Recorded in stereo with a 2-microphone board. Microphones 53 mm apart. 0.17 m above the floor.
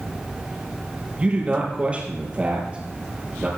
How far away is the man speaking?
About 4.5 m.